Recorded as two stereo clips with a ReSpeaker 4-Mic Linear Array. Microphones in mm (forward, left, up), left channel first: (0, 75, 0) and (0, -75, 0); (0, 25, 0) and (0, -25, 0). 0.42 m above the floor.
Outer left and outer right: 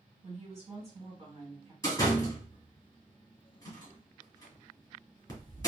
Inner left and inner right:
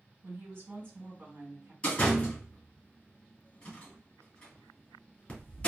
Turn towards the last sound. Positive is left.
turn(degrees=25)  # may be behind; listen again after turning